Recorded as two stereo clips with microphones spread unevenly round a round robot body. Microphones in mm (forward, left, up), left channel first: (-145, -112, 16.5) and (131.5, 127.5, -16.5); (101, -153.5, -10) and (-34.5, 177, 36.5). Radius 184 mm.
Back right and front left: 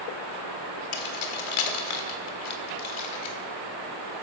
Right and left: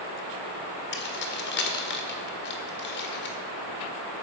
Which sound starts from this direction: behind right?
Keys jangling, at 0.9 s.